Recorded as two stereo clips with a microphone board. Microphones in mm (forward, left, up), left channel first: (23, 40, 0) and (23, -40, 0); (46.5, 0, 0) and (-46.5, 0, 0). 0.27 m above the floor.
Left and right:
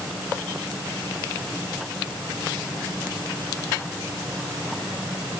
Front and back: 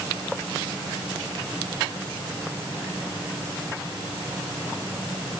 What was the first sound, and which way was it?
Only background noise.